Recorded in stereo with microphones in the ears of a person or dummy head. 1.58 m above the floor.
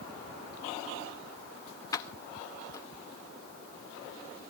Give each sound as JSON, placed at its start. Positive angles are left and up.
{"t": 1.9, "sound": "keys jangling", "side_deg": 20, "distance_m": 0.8}